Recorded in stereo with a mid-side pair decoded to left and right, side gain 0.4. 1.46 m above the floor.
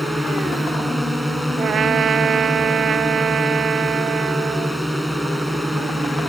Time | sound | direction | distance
0.0 | a drone | straight ahead | ?
1.6 | a trumpet | 60° right | ?